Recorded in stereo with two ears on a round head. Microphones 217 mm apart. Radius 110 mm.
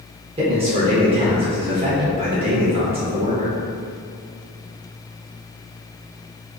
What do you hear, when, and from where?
0.4 s a man speaking: 25° right (ahead or behind), 0.8 m